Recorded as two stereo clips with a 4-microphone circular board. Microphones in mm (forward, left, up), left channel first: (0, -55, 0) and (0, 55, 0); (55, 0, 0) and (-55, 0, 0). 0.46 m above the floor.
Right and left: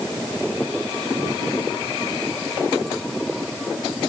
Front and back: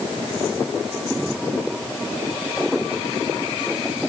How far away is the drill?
No drill in this recording.